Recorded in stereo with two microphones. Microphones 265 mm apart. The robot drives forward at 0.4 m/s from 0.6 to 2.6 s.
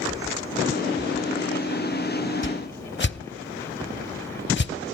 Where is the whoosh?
50° left (ahead or behind), 0.6 m; by 4.7 s 45° left (ahead or behind), 0.6 m.